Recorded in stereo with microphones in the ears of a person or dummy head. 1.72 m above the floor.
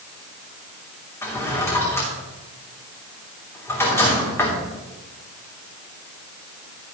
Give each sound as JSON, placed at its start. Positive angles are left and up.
{"t": 1.2, "sound": "a drawer", "side_deg": 15, "distance_m": 3.0}